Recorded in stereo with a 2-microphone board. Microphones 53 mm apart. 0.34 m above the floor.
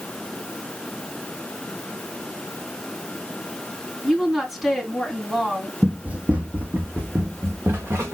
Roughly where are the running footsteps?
Right.